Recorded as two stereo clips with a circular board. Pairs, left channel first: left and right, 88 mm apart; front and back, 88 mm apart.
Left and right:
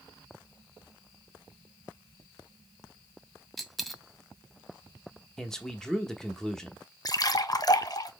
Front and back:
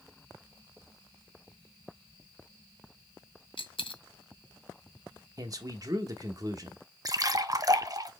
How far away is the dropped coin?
About 0.7 m.